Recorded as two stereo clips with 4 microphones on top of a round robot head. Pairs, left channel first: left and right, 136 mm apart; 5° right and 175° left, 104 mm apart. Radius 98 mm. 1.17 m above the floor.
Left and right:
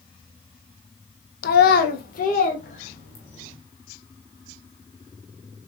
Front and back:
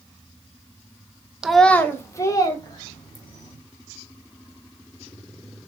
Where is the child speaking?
90° left, 0.8 m; by 3.5 s 40° left, 3 m.